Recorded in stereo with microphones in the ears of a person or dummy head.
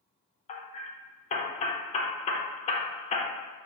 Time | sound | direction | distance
0.5 | hammering | 40° left (ahead or behind) | 0.6 m